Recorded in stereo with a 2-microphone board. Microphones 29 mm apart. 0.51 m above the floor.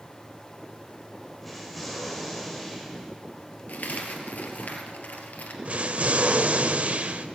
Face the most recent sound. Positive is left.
turn(degrees=-55)  # may be behind; listen again after turning